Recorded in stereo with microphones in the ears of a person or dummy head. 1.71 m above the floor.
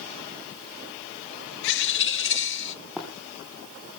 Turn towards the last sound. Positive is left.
turn(degrees=0)  # may be behind; listen again after turning